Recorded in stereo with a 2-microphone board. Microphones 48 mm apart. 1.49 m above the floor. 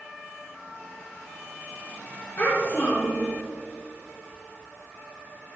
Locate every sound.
2.4 s a child speaking: 35° left (ahead or behind), 1.7 m